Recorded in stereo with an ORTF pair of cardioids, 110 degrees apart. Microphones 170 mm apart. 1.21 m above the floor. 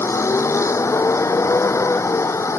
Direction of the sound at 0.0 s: 15° left.